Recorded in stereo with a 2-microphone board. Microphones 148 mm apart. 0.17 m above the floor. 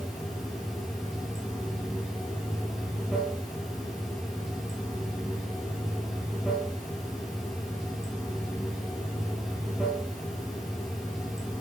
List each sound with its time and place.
0.0 s running water: centre (ahead or behind), 5 m